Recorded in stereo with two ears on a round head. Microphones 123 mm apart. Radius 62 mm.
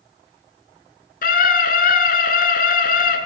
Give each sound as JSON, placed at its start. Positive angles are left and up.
{"t": 1.2, "sound": "a scream", "side_deg": 70, "distance_m": 7.0}